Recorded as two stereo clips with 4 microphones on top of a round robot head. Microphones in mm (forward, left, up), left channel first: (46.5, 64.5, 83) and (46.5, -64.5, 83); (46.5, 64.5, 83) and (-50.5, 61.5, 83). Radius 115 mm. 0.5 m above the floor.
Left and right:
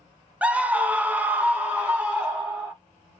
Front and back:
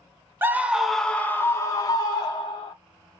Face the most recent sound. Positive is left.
turn(degrees=-10)